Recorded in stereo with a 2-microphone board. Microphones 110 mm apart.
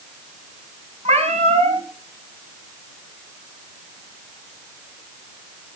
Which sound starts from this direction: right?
A cat meowing, at 1.1 s.